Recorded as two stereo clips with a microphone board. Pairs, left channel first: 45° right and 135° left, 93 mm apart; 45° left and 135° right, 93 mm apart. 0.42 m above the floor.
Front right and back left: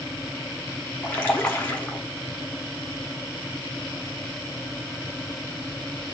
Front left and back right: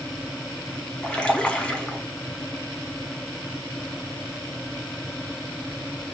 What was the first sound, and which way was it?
A splash, 10° right.